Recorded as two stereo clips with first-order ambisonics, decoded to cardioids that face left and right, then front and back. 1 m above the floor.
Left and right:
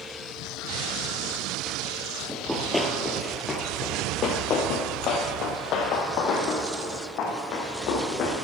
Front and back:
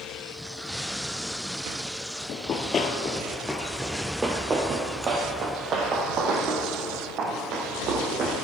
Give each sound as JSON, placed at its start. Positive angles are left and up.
{"t": 2.3, "sound": "running footsteps", "azimuth_deg": -5, "distance_m": 1.1}